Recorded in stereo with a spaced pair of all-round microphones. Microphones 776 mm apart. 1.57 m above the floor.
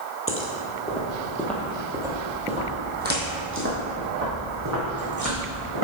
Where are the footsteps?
15° left (ahead or behind), 1.6 m; by 5.8 s 25° right (ahead or behind), 3.5 m.